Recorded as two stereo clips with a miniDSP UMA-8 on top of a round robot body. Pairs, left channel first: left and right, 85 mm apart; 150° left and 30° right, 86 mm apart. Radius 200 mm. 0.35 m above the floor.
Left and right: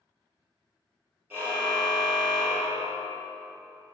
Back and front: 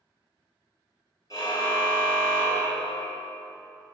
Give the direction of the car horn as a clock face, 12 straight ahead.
5 o'clock.